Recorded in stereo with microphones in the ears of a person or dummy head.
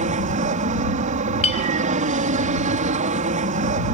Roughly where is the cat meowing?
I don't hear a cat meowing.